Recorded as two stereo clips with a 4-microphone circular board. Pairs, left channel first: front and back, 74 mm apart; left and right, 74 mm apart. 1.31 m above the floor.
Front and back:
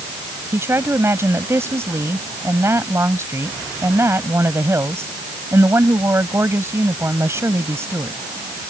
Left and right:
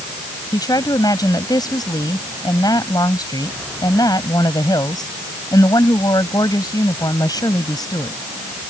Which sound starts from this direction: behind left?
A woman speaking, at 0.5 s.